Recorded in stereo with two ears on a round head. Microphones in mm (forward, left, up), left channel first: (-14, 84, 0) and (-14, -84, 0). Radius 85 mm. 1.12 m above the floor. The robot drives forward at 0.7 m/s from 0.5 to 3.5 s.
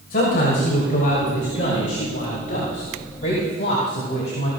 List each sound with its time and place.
0.1 s a man speaking: 50° left (ahead or behind), 6.5 m; by 4.5 s 40° left (ahead or behind), 8 m